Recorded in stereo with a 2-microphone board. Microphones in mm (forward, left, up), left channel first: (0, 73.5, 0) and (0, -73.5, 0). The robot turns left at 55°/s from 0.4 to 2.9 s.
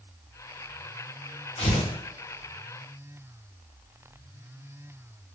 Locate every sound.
1.6 s tearing paper: 40° left (ahead or behind), 0.7 m; by 1.9 s 30° left (ahead or behind), 0.7 m